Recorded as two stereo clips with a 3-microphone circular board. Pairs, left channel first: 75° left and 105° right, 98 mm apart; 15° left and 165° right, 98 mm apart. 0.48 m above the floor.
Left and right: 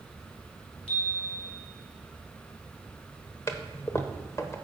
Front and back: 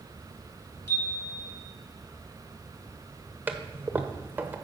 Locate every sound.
0.9 s a chime: 75° left, 2.5 m
3.5 s a toilet flushing: 125° left, 0.9 m